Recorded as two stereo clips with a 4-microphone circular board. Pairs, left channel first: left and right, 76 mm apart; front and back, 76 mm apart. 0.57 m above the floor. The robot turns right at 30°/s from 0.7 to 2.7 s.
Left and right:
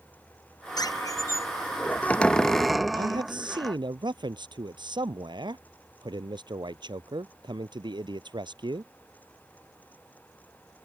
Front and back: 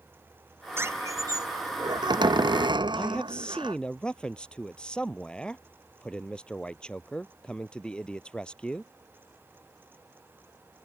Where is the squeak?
125° left; by 3.8 s straight behind.